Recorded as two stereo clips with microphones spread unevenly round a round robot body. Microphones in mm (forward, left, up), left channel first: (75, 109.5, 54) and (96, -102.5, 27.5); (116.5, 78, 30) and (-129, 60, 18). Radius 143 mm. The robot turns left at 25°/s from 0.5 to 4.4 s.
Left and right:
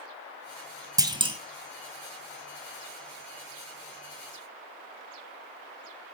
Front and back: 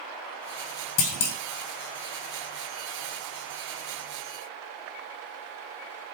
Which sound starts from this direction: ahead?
A clunk, at 1.0 s.